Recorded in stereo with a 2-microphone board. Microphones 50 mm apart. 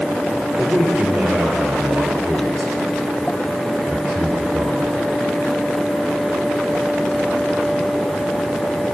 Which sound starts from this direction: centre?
A man speaking, at 0.6 s.